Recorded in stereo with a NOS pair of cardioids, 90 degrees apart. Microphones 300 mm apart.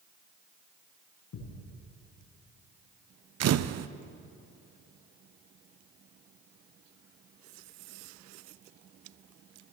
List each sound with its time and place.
1.3 s a thud: 65° left, 6 m
3.4 s a camera shutter: 60° right, 0.9 m